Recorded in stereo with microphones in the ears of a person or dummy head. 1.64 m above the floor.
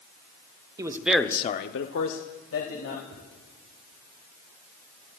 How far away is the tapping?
About 4 m.